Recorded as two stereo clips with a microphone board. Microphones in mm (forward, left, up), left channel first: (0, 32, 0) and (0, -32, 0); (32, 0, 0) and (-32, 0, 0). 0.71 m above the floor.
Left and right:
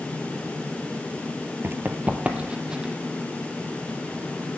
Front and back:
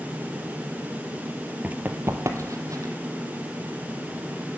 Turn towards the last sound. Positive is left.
turn(degrees=-170)